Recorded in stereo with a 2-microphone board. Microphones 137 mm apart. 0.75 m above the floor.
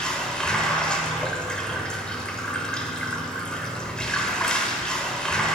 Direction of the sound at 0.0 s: 5° left (ahead or behind).